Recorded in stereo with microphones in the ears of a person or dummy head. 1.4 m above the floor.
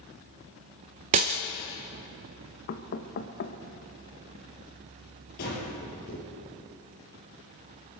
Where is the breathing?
50° left (ahead or behind), 5 m.